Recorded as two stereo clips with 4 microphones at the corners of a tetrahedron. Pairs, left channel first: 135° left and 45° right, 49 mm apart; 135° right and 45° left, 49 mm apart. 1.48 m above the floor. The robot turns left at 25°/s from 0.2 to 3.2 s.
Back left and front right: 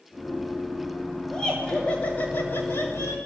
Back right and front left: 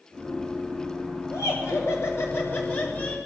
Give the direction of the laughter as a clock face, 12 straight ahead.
5 o'clock.